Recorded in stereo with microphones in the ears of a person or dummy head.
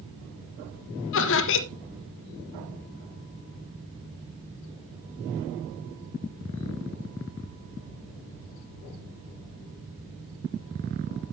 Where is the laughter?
65° left (ahead or behind), 1.3 m.